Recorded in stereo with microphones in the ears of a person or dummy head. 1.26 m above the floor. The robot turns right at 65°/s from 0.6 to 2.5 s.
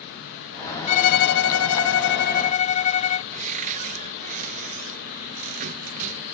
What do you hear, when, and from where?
0.9 s a violin: 35° left; by 3.2 s 140° left
3.3 s a cupboard door: 45° right (ahead or behind)